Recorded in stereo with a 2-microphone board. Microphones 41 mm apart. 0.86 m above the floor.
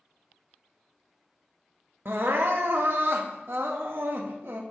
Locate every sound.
2.0 s crying: 60° right (ahead or behind), 0.6 m